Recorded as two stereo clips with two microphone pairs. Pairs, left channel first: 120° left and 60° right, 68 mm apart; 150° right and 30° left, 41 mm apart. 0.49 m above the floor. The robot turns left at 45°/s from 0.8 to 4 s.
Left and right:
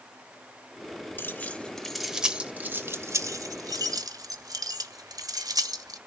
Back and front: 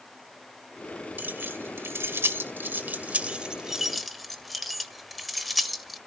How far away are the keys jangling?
About 1.3 m.